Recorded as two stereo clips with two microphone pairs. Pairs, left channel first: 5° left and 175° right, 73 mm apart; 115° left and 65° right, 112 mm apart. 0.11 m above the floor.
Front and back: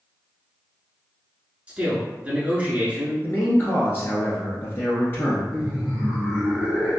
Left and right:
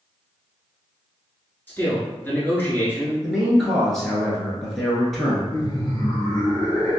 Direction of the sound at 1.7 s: 150° left.